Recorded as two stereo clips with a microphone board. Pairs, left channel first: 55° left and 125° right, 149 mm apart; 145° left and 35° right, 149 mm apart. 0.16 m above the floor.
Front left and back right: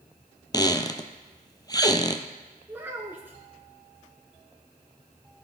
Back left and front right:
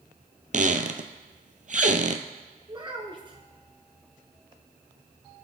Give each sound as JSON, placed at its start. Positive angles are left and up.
{"t": 0.5, "sound": "a squeak", "azimuth_deg": -5, "distance_m": 0.7}
{"t": 2.7, "sound": "a child speaking", "azimuth_deg": -55, "distance_m": 1.2}